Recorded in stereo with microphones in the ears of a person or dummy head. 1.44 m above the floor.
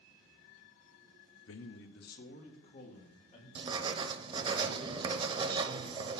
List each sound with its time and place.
1.5 s a man speaking: 70° left (ahead or behind), 0.7 m; by 3.5 s 35° left (ahead or behind), 3 m
3.5 s writing: 25° right (ahead or behind), 0.7 m